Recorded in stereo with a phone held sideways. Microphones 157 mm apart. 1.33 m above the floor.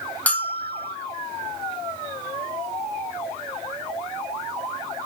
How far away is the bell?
About 0.8 m.